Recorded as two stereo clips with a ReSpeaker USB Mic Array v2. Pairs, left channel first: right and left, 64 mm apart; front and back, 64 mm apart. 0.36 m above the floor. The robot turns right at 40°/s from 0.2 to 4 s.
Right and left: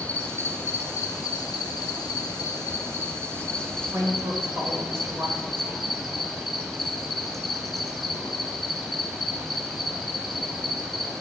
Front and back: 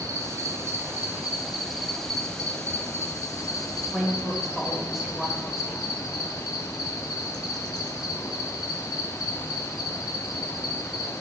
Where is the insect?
155° right, 0.8 m; by 11.2 s 5° right, 0.8 m.